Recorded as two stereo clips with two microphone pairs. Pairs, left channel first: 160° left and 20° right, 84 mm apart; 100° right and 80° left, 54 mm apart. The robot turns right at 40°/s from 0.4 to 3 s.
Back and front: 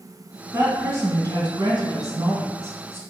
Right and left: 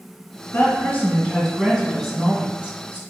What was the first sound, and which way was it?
A woman speaking, 70° right.